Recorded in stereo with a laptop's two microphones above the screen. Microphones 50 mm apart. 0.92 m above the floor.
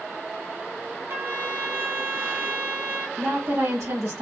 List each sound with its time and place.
1.1 s a trumpet: 50° right (ahead or behind), 1.7 m
3.2 s a woman speaking: 60° right (ahead or behind), 1.5 m